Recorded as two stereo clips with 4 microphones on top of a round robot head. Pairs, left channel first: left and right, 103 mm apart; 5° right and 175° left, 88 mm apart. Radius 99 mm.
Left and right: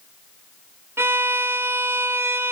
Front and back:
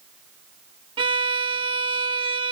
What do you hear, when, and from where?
1.0 s a violin: 160° right, 0.6 m